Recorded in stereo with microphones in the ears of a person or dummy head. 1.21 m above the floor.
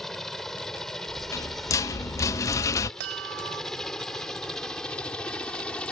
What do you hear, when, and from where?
0.0 s a helicopter: centre (ahead or behind); by 5.9 s 5° left (ahead or behind)
1.1 s a rattle: 20° left (ahead or behind)
3.0 s a chime: 65° right (ahead or behind)